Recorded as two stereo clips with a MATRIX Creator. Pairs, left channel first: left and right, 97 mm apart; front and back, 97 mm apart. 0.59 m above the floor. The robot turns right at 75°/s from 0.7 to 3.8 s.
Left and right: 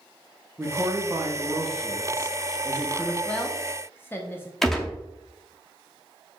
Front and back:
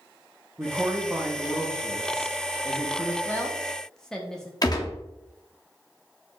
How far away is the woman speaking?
About 0.6 m.